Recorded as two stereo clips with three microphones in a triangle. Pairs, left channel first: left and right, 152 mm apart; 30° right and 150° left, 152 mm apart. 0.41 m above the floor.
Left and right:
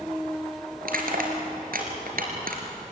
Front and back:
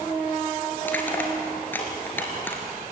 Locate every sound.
0.8 s crushing: 110° right, 3.5 m